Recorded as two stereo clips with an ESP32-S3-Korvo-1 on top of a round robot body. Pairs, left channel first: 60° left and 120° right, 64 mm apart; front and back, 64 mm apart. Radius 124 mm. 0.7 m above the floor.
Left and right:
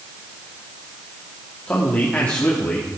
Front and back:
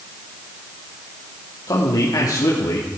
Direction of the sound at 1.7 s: 5° right.